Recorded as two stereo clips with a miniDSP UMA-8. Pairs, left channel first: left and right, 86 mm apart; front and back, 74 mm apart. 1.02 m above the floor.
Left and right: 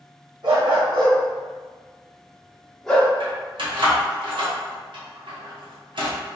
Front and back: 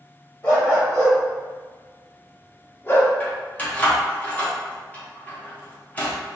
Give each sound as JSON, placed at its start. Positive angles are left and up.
{"t": 0.4, "sound": "a dog barking", "azimuth_deg": -60, "distance_m": 1.8}
{"t": 3.2, "sound": "keys jangling", "azimuth_deg": -65, "distance_m": 1.0}